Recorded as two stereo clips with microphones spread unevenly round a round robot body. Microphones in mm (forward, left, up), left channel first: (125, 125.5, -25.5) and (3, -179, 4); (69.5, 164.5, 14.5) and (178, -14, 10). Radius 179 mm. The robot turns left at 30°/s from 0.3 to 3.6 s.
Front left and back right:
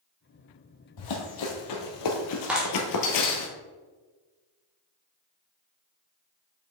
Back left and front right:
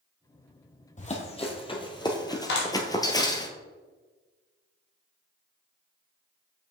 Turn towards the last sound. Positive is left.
turn(degrees=125)